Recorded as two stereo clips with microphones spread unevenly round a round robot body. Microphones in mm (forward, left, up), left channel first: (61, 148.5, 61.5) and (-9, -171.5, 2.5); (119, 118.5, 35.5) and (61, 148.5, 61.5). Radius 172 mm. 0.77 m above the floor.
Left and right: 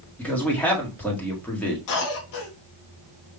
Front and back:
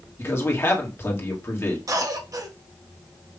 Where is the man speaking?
15° right, 1.7 m.